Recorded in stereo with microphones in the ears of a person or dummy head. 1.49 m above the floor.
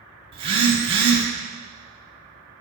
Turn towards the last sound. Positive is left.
turn(degrees=-25)  # may be behind; listen again after turning